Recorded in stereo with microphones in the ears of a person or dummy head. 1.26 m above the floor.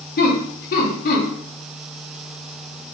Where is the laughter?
40° left (ahead or behind), 1.2 m.